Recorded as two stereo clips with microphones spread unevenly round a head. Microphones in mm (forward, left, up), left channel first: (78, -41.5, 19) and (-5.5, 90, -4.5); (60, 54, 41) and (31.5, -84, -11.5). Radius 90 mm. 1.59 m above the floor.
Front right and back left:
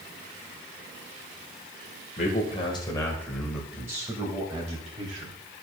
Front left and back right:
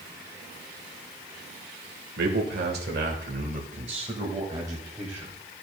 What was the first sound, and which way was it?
A man speaking, 110° right.